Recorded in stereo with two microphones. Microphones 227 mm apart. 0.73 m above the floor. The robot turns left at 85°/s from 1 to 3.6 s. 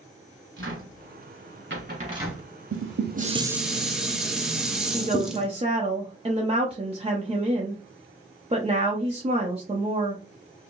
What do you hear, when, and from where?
0.6 s a cupboard door: 60° right (ahead or behind), 1.7 m; by 2.5 s 5° left (ahead or behind), 1.7 m
2.7 s dishes clattering: 100° right, 0.6 m; by 5.5 s straight behind, 0.6 m
4.9 s a woman speaking: 25° right (ahead or behind), 0.8 m